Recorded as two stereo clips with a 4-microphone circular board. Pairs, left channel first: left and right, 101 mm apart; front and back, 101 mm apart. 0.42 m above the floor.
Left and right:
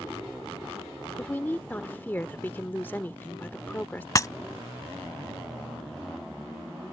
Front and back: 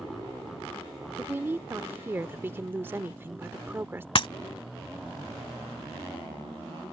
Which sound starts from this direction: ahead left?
Breaking glass, at 4.2 s.